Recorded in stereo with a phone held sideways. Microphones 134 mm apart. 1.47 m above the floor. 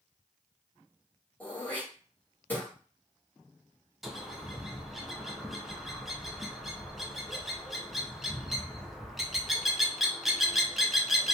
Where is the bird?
Centre (ahead or behind), 0.5 m.